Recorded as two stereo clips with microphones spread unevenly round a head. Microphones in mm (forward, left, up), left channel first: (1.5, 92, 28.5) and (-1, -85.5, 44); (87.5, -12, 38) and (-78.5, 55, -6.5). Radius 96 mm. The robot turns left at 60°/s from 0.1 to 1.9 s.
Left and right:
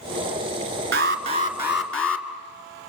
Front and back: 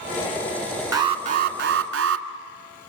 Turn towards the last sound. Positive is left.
turn(degrees=175)